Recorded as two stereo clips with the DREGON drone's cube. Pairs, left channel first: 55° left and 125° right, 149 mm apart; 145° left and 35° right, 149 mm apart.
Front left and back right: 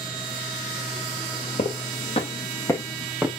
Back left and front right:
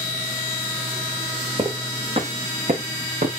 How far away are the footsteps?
About 2.5 m.